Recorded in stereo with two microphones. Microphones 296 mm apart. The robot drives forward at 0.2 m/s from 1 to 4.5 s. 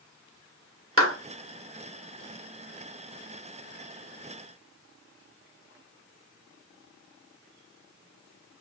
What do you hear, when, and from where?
1.0 s a clap: 45° right (ahead or behind), 1.5 m